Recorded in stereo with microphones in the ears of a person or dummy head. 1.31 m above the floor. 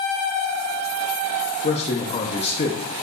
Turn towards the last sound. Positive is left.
turn(degrees=35)  # may be behind; listen again after turning